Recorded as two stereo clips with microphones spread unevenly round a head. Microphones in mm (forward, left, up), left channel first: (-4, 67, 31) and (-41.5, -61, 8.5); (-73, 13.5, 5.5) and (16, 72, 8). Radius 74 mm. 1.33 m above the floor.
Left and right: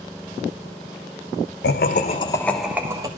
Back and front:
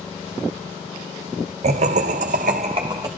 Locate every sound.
1.6 s laughter: 50° left, 1.2 m; by 3.1 s 40° right, 1.3 m